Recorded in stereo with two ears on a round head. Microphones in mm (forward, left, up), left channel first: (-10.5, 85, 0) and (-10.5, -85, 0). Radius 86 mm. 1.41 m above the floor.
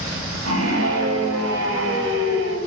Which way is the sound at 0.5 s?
80° right.